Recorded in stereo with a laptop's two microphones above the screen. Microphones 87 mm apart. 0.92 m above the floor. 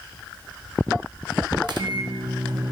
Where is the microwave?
55° right (ahead or behind), 0.6 m.